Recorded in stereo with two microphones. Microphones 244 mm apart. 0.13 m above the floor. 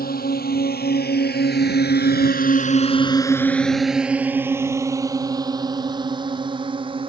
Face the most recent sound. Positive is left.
turn(degrees=-20)  # may be behind; listen again after turning